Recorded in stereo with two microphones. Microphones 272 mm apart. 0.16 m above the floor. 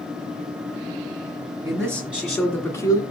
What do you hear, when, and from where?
1.6 s a man speaking: 15° right (ahead or behind), 1.7 m; by 3.0 s 15° left (ahead or behind), 1.9 m